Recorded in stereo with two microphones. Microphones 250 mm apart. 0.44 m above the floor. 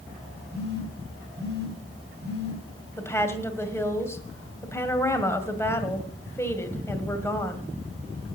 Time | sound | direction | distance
0.5 | a phone buzzing | 45° right (ahead or behind) | 3 m
3.0 | a woman speaking | 10° left (ahead or behind) | 1.9 m